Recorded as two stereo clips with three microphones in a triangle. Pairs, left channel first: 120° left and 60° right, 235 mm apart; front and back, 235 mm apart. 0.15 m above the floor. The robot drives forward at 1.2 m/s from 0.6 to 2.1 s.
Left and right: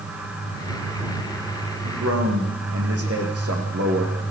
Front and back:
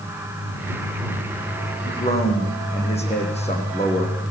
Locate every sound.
1.8 s a man speaking: 60° right, 9 m; by 4.2 s 65° right, 9 m